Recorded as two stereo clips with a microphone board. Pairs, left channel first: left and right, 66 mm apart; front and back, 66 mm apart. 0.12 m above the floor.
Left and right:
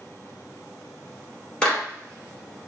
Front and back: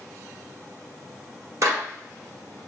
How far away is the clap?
About 1.5 m.